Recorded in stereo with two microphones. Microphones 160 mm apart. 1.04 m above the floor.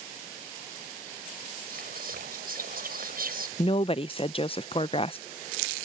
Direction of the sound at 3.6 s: 35° left (ahead or behind).